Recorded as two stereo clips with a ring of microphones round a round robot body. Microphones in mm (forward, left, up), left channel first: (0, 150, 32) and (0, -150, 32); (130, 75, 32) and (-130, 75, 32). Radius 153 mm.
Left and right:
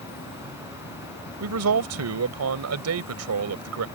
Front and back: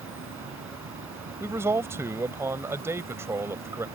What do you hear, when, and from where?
0.0 s an insect: 145° left
1.4 s a man speaking: 100° right